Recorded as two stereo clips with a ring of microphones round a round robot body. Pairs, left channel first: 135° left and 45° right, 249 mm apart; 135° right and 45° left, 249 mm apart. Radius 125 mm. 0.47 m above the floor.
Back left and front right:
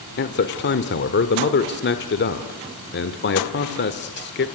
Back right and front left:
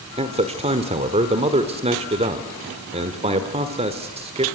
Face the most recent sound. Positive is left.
turn(degrees=105)